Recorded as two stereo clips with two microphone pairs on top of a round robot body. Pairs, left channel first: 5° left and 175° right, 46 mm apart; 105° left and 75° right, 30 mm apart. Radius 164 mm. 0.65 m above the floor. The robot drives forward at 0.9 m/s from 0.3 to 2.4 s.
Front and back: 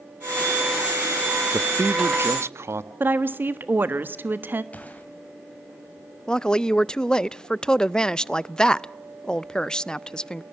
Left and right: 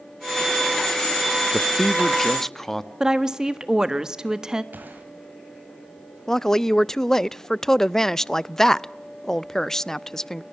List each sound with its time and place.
1.5 s a man speaking: 175° right, 0.6 m; by 2.9 s straight behind, 1.3 m
3.0 s a woman speaking: 145° right, 1.5 m
4.7 s a gunshot: 55° right, 2.5 m
6.3 s a woman speaking: 65° left, 0.6 m